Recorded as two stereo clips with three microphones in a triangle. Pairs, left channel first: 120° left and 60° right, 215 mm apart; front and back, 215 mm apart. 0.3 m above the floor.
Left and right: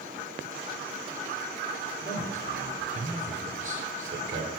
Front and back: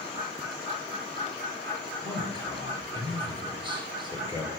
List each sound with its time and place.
2.0 s a man speaking: 115° right, 5 m